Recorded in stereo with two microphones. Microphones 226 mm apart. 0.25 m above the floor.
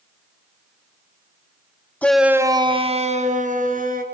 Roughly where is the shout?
Centre.